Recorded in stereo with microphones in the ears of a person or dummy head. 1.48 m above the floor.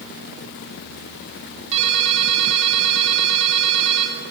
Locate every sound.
1.7 s a ringtone: 35° right (ahead or behind), 2 m